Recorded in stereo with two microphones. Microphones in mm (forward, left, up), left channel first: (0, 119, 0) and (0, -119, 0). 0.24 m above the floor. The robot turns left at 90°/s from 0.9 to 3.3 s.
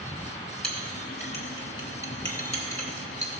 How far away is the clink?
About 1.6 m.